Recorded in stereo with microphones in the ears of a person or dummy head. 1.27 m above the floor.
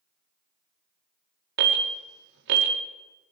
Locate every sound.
1.6 s an alarm: 55° right (ahead or behind), 2.5 m